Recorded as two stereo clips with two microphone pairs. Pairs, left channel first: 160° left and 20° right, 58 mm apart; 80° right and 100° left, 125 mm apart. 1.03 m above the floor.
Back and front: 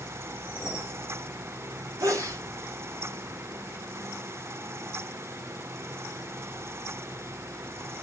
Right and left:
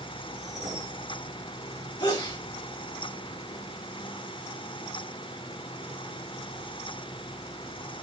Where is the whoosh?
40° left, 3 m.